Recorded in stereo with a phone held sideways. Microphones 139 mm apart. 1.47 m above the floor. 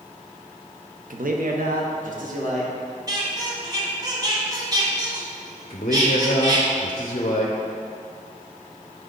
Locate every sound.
1.1 s a man speaking: 75° right (ahead or behind), 0.7 m; by 2.7 s 65° right (ahead or behind), 1.6 m
3.1 s a squeak: 30° right (ahead or behind), 1.5 m
5.7 s a man speaking: 50° left (ahead or behind), 0.7 m